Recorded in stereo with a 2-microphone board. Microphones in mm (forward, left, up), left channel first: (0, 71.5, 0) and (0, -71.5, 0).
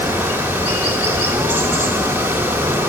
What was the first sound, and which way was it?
Running water, 15° right (ahead or behind).